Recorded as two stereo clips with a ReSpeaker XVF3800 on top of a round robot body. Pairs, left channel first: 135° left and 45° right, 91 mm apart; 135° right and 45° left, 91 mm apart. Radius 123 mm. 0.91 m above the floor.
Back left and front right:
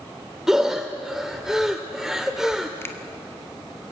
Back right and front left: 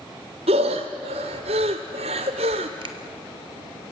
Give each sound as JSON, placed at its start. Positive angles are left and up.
{"t": 0.5, "sound": "breathing", "azimuth_deg": 40, "distance_m": 0.8}
{"t": 2.8, "sound": "a finger snap", "azimuth_deg": 70, "distance_m": 1.7}